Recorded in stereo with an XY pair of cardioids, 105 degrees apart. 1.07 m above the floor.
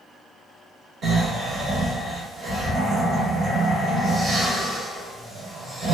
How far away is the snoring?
About 1.5 m.